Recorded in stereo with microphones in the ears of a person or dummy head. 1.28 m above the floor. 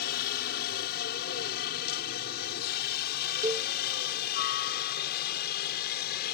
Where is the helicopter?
50° left (ahead or behind); by 6.3 s 55° left (ahead or behind).